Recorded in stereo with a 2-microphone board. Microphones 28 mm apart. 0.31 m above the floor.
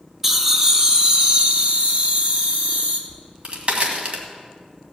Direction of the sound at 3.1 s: 45° right (ahead or behind).